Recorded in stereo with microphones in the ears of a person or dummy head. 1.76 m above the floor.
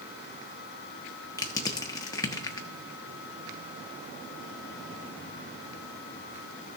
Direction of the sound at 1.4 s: 20° left (ahead or behind).